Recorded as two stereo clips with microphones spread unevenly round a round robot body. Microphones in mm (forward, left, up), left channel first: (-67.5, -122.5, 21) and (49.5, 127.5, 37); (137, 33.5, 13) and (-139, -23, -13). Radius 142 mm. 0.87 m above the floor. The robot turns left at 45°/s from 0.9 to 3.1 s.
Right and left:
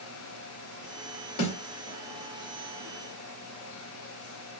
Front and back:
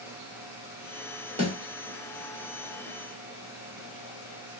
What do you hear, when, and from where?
1.4 s a snare drum: 100° right, 3 m; by 1.5 s 105° right, 3 m